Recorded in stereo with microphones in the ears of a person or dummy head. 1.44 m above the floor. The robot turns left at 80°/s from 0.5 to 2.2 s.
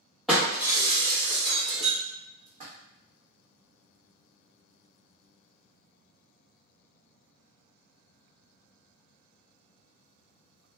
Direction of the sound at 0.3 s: 5° right (ahead or behind).